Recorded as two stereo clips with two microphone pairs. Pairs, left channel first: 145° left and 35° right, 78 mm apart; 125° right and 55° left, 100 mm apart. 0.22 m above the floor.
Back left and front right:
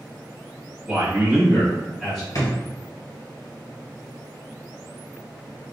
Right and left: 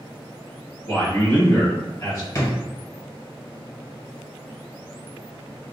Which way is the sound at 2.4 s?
Straight behind.